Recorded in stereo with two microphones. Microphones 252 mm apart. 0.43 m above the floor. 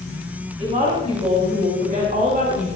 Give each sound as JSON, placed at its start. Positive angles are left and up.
{"t": 0.6, "sound": "a woman speaking", "side_deg": -30, "distance_m": 5.0}